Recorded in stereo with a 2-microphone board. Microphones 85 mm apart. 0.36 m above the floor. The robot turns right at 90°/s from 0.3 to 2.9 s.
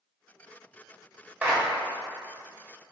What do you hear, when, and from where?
1.4 s a clap: 20° right (ahead or behind), 1.5 m; by 1.6 s 10° right (ahead or behind), 1.5 m